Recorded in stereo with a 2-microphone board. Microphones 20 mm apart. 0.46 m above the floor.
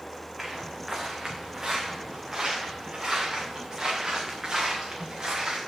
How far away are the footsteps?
About 2.0 m.